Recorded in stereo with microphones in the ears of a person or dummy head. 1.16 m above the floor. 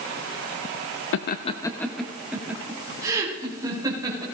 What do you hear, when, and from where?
1.1 s laughter: 65° left (ahead or behind), 0.7 m; by 4.2 s 20° right (ahead or behind), 4 m